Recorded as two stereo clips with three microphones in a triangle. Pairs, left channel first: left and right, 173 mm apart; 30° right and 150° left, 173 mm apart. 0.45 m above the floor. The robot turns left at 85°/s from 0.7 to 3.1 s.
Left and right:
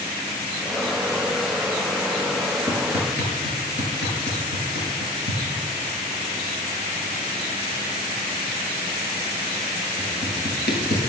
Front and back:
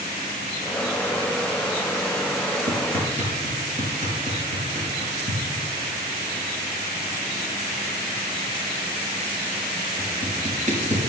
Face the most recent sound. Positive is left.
turn(degrees=105)